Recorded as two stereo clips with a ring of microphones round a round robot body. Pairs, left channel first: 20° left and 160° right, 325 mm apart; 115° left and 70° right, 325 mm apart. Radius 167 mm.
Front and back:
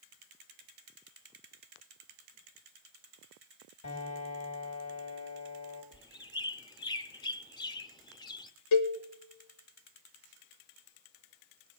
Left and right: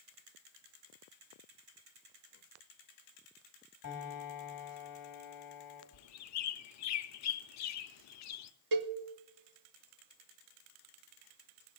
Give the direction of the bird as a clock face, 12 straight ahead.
9 o'clock.